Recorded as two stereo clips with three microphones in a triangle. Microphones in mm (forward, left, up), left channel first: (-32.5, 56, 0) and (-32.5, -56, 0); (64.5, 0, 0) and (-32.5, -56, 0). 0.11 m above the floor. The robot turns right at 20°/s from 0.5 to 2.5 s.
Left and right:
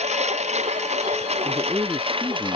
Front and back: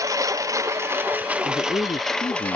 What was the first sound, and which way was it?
A lawn mower, 90° right.